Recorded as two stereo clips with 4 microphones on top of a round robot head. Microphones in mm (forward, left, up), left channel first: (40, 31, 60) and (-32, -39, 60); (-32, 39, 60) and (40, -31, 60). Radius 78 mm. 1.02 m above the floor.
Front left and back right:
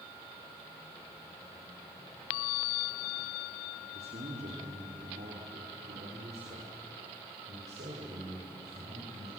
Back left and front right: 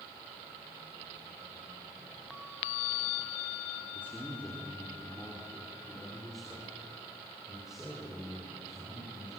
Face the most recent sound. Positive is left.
turn(degrees=-125)